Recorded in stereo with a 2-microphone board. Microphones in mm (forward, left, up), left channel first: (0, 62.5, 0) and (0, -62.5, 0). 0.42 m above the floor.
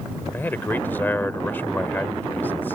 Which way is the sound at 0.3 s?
15° left (ahead or behind).